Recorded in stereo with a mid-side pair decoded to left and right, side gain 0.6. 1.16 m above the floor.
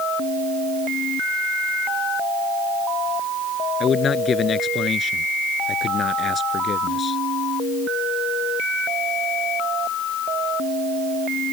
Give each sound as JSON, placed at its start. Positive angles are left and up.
{"t": 3.8, "sound": "a man speaking", "azimuth_deg": 35}